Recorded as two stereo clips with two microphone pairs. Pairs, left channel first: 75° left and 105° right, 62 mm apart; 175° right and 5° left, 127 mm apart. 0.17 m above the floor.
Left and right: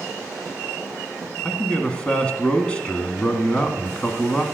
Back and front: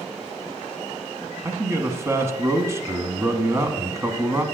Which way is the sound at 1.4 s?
35° left.